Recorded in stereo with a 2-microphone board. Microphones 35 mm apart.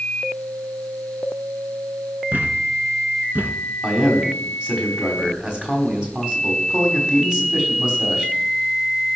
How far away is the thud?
About 1.8 m.